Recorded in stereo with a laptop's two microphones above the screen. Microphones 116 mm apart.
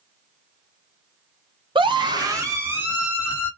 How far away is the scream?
About 0.8 m.